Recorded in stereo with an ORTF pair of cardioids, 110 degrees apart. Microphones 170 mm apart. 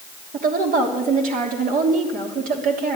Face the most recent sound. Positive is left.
turn(degrees=-55)